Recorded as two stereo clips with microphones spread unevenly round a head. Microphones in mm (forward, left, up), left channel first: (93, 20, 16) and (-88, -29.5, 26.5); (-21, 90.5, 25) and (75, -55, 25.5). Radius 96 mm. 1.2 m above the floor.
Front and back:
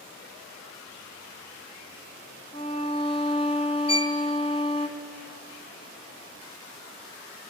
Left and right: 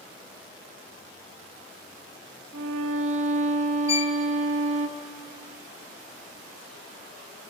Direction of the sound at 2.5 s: 50° right.